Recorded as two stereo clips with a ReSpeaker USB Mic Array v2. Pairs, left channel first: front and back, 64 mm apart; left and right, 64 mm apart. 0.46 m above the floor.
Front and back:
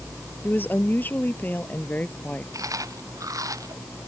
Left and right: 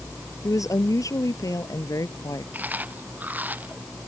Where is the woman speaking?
55° left; by 2.4 s 65° left.